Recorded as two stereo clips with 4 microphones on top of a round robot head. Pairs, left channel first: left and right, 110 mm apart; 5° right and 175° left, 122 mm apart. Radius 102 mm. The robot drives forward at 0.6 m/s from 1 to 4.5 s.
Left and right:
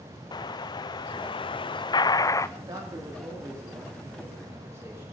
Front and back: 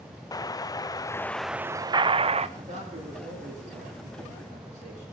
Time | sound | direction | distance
0.3 | an explosion | 50° left | 0.6 m
2.6 | a man speaking | 145° right | 2.5 m